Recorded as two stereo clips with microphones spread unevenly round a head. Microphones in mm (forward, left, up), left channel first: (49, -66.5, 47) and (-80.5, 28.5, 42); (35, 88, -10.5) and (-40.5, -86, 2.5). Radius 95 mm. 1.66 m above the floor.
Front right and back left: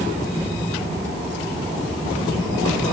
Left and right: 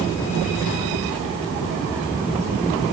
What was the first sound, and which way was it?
Only background noise.